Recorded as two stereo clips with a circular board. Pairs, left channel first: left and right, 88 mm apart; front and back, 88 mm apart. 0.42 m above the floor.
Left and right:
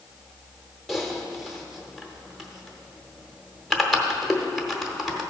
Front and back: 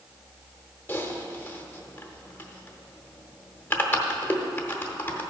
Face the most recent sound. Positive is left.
turn(degrees=-5)